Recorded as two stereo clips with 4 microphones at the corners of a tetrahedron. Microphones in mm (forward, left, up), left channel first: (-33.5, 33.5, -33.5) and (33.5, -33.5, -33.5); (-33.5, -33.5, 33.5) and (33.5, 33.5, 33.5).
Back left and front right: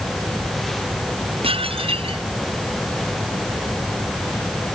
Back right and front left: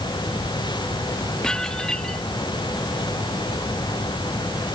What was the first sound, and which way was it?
Dishes clattering, 50° right.